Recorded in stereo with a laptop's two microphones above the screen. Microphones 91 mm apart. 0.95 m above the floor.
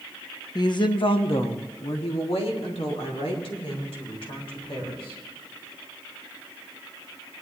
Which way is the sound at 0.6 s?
45° left (ahead or behind).